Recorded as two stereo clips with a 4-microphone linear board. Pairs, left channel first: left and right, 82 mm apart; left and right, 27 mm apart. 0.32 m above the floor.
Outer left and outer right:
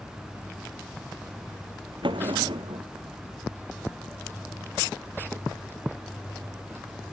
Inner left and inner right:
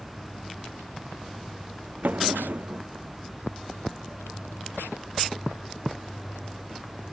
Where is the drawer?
85° right.